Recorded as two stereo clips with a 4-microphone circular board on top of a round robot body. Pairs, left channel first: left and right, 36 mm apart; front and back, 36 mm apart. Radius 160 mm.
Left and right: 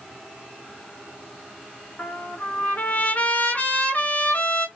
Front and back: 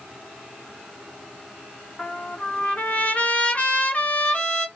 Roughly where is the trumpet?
Ahead left.